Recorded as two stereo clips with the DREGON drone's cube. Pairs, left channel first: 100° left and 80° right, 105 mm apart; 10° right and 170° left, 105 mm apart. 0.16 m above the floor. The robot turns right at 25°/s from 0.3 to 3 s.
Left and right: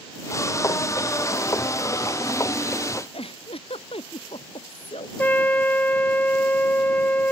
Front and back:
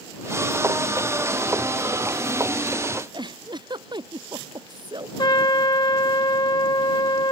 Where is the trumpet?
25° left.